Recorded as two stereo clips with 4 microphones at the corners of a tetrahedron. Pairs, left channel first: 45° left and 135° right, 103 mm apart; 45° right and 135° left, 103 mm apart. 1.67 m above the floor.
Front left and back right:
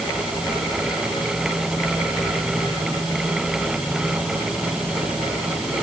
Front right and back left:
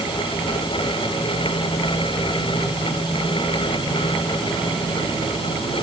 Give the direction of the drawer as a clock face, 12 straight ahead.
No drawer in this recording.